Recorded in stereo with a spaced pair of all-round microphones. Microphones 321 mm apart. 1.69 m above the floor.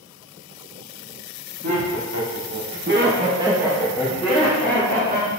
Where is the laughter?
60° right (ahead or behind), 1.1 m; by 5.3 s 30° left (ahead or behind), 1.4 m.